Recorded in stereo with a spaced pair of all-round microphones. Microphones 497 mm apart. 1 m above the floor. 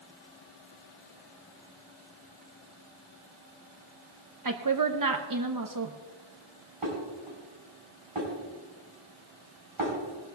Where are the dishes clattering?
85° right, 4.5 m.